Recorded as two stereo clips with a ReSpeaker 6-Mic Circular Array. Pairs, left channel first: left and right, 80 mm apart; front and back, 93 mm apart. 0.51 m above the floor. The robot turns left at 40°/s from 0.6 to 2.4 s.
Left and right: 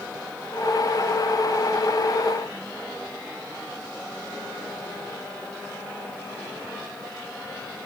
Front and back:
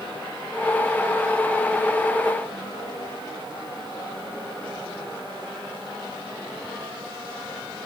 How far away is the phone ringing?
No phone ringing in this recording.